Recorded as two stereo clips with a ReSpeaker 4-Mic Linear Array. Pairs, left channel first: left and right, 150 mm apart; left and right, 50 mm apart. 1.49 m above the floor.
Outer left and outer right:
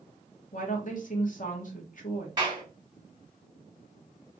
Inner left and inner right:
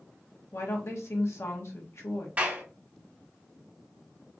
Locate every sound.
0.5 s a woman speaking: 60° left (ahead or behind), 1.4 m
2.4 s a clap: 30° right (ahead or behind), 2 m